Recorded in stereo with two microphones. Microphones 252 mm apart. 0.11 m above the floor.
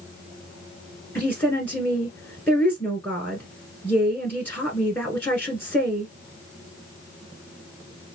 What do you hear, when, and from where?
1.1 s a woman speaking: 5° left (ahead or behind), 1.1 m